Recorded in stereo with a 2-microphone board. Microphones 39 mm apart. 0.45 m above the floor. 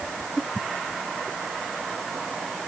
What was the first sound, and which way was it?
Only background noise.